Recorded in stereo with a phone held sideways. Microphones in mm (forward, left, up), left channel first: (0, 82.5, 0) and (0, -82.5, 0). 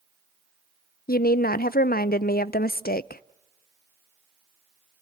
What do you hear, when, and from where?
1.1 s a woman speaking: 70° left (ahead or behind), 0.5 m